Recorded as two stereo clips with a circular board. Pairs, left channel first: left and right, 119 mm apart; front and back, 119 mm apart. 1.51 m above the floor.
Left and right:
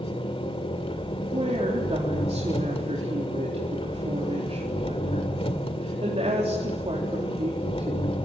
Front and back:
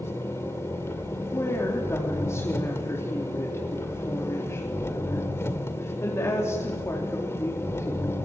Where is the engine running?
65° left, 2 m.